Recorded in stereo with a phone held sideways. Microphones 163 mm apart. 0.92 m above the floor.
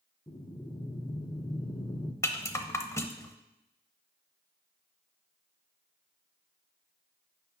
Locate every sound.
0.3 s breathing: 25° left (ahead or behind), 0.8 m
2.2 s a rattle: 15° left (ahead or behind), 0.7 m